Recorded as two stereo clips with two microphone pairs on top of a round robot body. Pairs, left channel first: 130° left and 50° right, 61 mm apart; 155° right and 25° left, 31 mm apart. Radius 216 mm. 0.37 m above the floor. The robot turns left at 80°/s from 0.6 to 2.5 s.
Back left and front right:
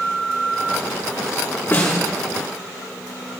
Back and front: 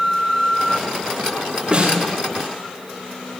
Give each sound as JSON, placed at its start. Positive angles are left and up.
{"t": 1.7, "sound": "a snare drum", "azimuth_deg": 65, "distance_m": 5.0}